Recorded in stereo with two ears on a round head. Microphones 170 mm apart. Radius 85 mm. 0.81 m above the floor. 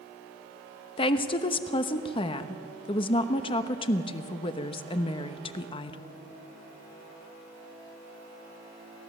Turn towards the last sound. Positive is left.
turn(degrees=30)  # may be behind; listen again after turning